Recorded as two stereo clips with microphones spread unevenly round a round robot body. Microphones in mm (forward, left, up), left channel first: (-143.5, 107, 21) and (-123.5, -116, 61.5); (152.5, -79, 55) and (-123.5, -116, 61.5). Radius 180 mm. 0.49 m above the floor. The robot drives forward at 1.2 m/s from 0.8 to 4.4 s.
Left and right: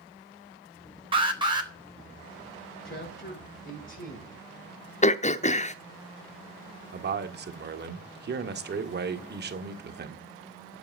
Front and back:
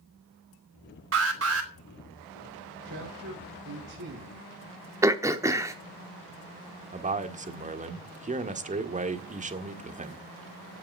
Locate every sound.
1.1 s an alarm: 155° right, 3.5 m; by 1.7 s 160° right, 4 m
2.9 s a man speaking: 135° left, 7 m; by 4.4 s 145° left, 8.5 m
5.0 s throat clearing: 110° left, 0.9 m
6.9 s a man speaking: 115° right, 1.9 m